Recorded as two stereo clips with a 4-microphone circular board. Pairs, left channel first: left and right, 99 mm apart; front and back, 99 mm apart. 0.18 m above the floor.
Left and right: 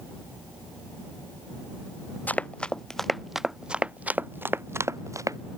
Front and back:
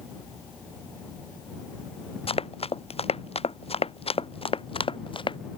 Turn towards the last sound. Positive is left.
turn(degrees=-35)